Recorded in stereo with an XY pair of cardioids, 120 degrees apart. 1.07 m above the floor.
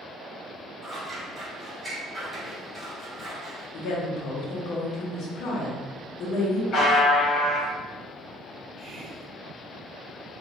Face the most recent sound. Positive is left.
turn(degrees=-35)